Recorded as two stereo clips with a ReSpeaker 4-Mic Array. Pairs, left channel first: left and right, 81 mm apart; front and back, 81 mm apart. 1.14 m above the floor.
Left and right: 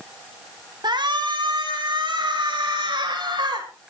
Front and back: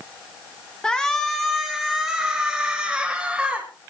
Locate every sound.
0.8 s a shout: 80° right, 1.4 m; by 3.7 s 100° right, 3 m